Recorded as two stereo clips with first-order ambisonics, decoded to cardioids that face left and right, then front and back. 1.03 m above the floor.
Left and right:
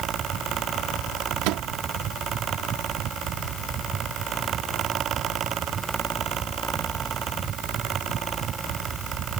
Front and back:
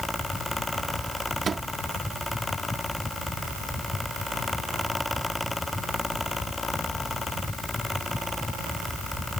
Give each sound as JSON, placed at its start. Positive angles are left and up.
{"t": 1.4, "sound": "a microwave", "azimuth_deg": -110}